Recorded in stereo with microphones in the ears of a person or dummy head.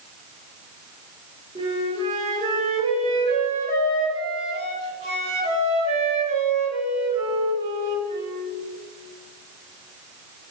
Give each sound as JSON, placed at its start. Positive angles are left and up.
{"t": 1.6, "sound": "a flute", "side_deg": -30, "distance_m": 3.0}